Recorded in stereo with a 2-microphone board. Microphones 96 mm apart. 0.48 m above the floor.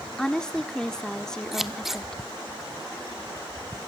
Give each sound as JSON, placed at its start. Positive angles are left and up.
{"t": 0.2, "sound": "a woman speaking", "side_deg": 5, "distance_m": 0.8}
{"t": 1.5, "sound": "scissors", "side_deg": -5, "distance_m": 1.0}